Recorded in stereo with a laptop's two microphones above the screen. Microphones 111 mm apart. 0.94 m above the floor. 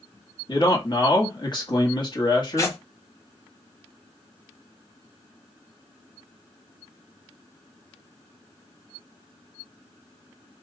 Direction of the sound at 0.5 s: 40° left (ahead or behind).